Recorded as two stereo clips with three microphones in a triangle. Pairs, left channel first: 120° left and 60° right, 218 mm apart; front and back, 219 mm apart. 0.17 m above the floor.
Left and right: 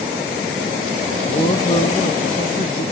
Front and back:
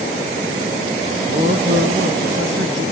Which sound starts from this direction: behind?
A man speaking, at 1.2 s.